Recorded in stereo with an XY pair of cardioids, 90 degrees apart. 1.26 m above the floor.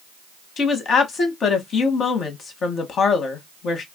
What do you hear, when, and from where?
0.6 s a woman speaking: 65° left, 1.0 m